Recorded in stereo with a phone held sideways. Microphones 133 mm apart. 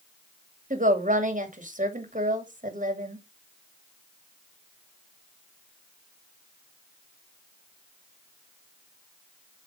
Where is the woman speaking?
70° right (ahead or behind), 2 m.